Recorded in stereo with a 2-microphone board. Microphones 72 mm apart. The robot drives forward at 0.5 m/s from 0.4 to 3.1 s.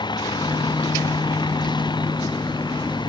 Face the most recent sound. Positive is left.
turn(degrees=90)